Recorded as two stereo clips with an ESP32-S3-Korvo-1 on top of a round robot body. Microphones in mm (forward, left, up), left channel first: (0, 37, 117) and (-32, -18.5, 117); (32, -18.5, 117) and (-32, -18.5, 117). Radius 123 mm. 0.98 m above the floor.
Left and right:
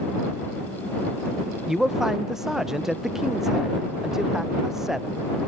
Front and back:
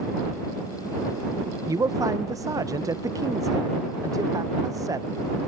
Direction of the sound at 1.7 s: 155° left.